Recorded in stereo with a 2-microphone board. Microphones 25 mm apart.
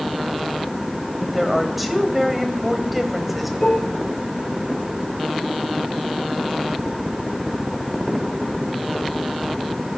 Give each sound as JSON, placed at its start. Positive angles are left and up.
{"t": 1.2, "sound": "a woman speaking", "side_deg": -5, "distance_m": 2.5}
{"t": 3.6, "sound": "dishes clattering", "side_deg": 45, "distance_m": 6.0}